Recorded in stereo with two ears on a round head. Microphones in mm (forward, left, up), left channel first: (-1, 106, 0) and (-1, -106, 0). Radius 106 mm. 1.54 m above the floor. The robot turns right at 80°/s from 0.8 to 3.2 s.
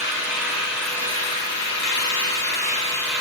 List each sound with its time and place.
0.0 s an engine running: 5° right, 6 m; by 3.2 s 170° right, 6 m